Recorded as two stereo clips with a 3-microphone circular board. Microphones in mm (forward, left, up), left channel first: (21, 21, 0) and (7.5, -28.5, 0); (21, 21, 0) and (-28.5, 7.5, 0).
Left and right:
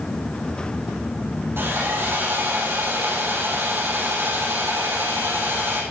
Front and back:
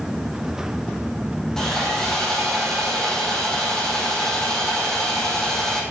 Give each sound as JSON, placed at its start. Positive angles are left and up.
{"t": 1.6, "sound": "sawing", "azimuth_deg": -65, "distance_m": 4.5}